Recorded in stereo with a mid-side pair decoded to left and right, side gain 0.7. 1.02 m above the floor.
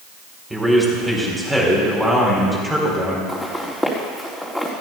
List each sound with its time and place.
0.5 s a man speaking: 10° right, 4 m
3.3 s footsteps: 5° left, 4 m